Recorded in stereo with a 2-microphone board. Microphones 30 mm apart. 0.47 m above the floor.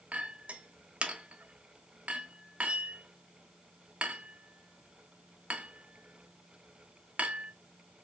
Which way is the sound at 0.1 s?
50° right (ahead or behind).